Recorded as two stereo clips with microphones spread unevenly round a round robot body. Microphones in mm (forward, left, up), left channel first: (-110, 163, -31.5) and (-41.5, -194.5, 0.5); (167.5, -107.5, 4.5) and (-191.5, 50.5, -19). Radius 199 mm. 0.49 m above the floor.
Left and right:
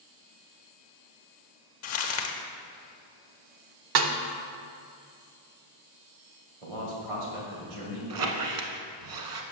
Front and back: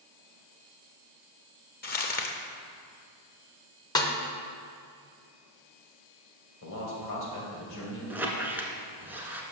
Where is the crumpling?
45° left, 0.5 m.